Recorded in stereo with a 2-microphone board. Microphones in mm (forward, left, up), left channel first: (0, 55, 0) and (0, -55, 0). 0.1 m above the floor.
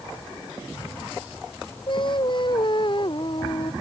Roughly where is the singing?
Left.